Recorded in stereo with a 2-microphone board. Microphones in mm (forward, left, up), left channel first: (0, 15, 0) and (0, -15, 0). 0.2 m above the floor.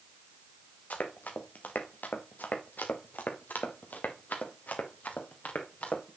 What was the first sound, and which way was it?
Running footsteps, 65° left (ahead or behind).